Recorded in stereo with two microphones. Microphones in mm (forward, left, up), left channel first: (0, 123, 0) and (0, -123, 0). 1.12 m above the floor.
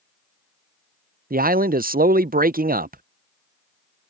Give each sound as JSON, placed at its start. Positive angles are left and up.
{"t": 1.3, "sound": "a man speaking", "side_deg": -35}